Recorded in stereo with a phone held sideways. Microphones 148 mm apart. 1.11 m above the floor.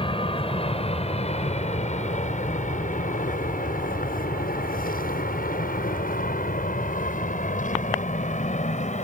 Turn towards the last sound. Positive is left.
turn(degrees=50)  # may be behind; listen again after turning